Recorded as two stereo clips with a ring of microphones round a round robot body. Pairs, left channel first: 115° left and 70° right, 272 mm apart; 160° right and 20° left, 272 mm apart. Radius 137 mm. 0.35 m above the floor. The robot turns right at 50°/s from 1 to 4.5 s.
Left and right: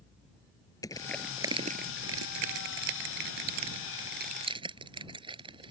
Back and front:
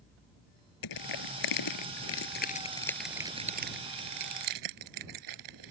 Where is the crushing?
170° right; by 5.7 s 5° left.